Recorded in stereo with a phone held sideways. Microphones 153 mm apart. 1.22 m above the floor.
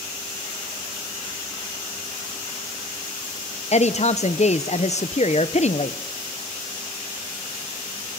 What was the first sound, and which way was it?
A woman speaking, 45° left (ahead or behind).